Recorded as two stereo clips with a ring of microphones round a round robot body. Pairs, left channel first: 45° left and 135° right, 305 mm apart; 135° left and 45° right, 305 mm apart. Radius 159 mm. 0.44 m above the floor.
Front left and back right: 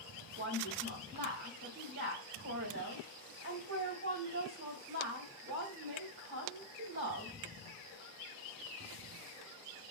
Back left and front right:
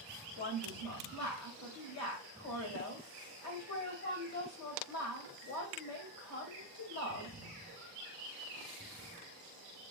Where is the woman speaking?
170° left, 2.5 m.